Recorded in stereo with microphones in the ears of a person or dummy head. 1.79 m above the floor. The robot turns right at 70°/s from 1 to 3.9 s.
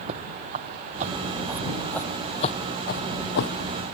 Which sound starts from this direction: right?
Footsteps, at 0.1 s.